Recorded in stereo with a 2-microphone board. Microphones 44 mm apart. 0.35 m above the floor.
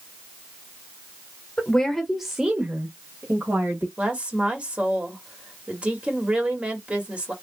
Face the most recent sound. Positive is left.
turn(degrees=-30)  # may be behind; listen again after turning